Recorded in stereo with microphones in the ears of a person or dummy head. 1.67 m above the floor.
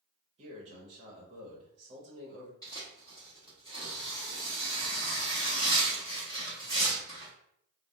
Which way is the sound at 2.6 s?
10° left (ahead or behind).